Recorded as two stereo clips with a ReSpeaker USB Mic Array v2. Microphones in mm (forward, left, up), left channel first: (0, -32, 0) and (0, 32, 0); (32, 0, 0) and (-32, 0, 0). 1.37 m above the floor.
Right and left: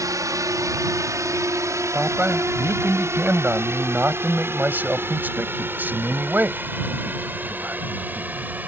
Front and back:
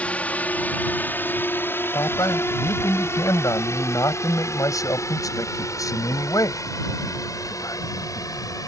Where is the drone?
70° left; by 8.7 s 25° left.